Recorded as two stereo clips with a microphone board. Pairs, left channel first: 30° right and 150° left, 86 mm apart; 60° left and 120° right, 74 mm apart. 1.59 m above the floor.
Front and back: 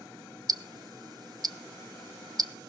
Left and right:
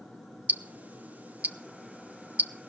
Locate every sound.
0.5 s ticking: 175° left, 0.7 m